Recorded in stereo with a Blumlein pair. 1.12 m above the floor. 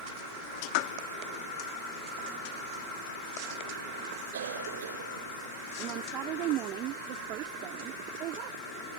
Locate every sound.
4.3 s a cough: 60° right
5.8 s a woman speaking: 35° right